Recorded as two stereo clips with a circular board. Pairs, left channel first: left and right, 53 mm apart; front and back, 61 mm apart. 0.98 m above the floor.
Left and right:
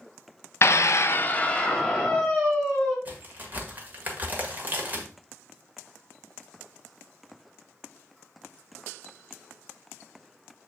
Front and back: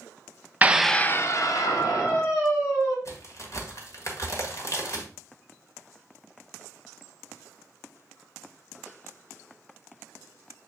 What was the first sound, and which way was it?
A scream, 120° left.